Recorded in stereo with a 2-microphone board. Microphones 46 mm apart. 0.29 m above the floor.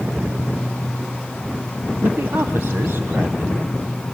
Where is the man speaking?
55° right (ahead or behind), 1.7 m.